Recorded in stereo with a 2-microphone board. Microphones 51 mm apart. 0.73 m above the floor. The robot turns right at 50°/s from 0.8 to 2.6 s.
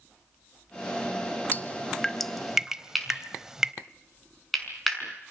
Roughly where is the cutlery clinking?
Centre.